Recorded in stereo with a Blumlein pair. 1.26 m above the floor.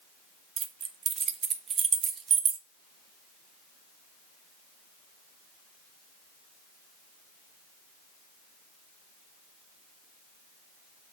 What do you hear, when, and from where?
0.6 s keys jangling: 25° right, 0.7 m